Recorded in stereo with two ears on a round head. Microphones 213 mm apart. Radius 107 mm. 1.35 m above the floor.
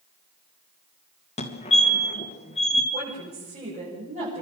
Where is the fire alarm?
25° left (ahead or behind), 2.5 m.